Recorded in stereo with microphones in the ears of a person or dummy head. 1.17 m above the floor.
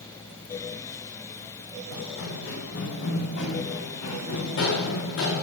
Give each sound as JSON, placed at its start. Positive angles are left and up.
{"t": 1.9, "sound": "running footsteps", "side_deg": 65, "distance_m": 8.0}